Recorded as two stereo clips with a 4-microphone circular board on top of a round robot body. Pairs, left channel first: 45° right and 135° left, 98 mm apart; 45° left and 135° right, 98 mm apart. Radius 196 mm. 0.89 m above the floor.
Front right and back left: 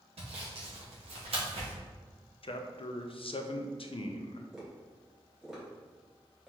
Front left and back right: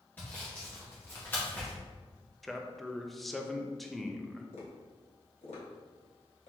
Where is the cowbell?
I don't hear a cowbell.